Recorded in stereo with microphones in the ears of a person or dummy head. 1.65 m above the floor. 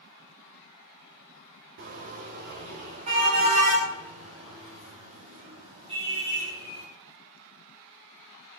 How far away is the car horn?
About 3 m.